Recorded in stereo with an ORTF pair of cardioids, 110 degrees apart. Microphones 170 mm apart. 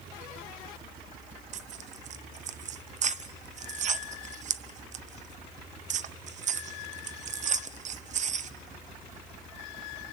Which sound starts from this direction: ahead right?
Tearing paper, at 1.5 s.